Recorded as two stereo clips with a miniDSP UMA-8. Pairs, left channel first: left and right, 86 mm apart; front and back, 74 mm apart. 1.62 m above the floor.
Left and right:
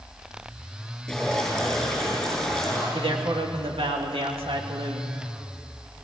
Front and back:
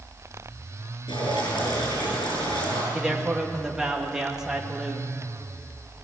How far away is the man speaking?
About 2.5 m.